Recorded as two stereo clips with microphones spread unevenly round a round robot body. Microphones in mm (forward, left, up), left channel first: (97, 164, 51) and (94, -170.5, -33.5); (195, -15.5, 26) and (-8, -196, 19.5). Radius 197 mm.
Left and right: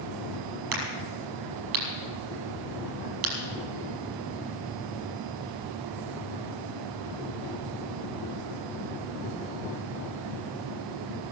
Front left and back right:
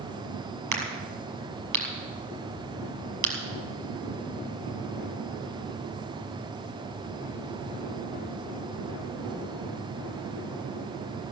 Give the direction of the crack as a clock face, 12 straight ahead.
4 o'clock.